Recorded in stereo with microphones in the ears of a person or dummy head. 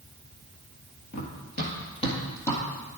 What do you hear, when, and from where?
1.1 s running footsteps: 55° left (ahead or behind), 1.8 m; by 2.6 s 5° left (ahead or behind), 2 m